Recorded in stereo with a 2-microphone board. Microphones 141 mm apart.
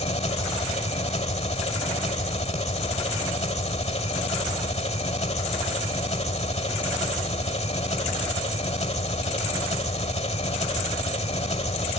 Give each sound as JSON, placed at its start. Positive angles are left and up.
{"t": 0.0, "sound": "an engine running", "side_deg": 50, "distance_m": 1.5}